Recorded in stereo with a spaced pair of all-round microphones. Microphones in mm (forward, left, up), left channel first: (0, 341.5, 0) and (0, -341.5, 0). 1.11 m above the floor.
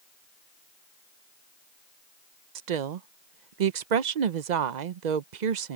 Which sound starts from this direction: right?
A woman speaking, at 2.5 s.